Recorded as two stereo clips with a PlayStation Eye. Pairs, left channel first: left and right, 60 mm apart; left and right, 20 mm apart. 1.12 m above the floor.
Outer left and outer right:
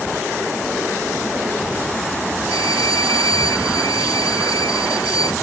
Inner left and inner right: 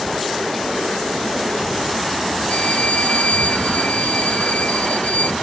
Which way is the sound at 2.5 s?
80° left.